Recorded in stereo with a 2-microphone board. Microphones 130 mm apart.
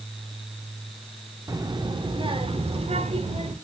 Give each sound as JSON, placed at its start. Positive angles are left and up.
{"t": 1.5, "sound": "a child speaking", "side_deg": -30, "distance_m": 1.1}